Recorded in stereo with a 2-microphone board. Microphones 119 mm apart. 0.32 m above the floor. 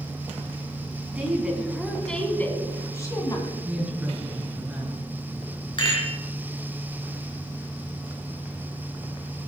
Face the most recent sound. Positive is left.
turn(degrees=40)  # may be behind; listen again after turning